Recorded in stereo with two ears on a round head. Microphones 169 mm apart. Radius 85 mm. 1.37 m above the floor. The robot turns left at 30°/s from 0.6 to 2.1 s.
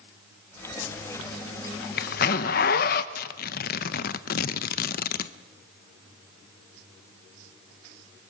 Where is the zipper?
70° left (ahead or behind), 0.8 m; by 3.0 s 50° left (ahead or behind), 0.8 m.